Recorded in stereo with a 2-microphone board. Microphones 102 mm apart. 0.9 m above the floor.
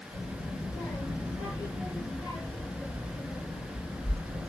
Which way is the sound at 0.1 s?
15° left (ahead or behind).